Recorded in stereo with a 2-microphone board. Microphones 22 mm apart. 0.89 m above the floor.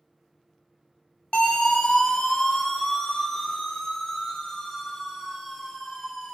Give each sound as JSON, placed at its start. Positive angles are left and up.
{"t": 1.3, "sound": "a siren", "side_deg": 60, "distance_m": 4.0}